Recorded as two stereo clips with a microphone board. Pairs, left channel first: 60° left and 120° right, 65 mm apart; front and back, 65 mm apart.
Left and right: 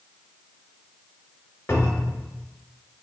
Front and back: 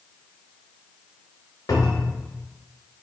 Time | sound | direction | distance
1.7 | a cupboard door | 10° left | 0.7 m